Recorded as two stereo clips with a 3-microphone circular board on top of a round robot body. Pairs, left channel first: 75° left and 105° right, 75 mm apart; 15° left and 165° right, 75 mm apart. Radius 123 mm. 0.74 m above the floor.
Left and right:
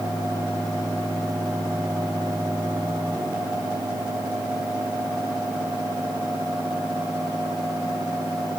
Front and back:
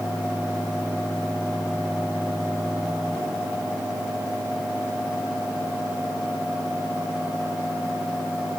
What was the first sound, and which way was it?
Only background noise.